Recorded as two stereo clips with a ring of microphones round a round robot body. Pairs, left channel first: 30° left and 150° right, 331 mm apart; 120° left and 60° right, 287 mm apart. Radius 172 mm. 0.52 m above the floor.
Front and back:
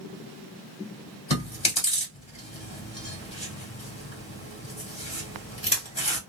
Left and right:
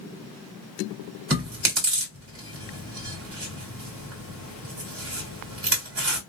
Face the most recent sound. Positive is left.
turn(degrees=-35)